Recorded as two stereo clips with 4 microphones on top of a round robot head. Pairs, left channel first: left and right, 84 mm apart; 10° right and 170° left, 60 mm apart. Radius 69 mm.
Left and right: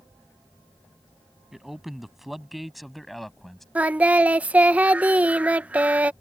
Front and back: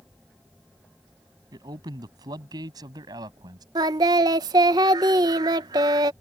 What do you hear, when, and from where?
1.5 s a man speaking: 175° right; by 3.6 s straight behind
3.8 s singing: 165° right